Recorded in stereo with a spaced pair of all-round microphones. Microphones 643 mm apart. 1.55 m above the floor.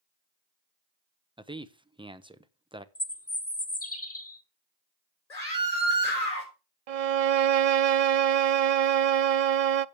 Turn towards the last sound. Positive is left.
turn(degrees=-65)  # may be behind; listen again after turning